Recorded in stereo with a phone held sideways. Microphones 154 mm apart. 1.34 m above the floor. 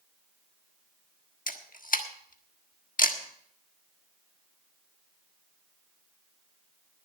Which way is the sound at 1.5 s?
65° left (ahead or behind).